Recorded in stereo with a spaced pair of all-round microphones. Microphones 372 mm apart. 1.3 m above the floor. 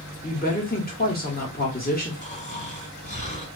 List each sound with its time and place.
0.2 s a woman speaking: 25° left (ahead or behind), 1.1 m
2.2 s snoring: 20° left (ahead or behind), 1.8 m